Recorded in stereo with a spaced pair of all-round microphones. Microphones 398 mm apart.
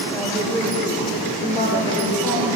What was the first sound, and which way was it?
A woman speaking, 5° left (ahead or behind).